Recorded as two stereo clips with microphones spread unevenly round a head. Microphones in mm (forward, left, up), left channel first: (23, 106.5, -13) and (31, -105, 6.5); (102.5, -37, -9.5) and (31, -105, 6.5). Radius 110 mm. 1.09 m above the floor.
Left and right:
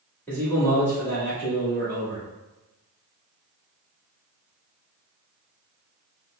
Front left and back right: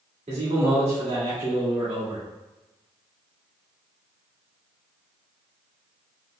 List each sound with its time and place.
0.3 s a man speaking: 175° left, 1.9 m